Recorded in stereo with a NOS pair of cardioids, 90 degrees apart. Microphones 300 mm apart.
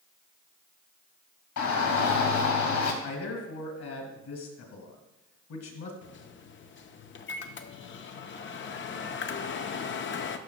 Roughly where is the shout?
Ahead left.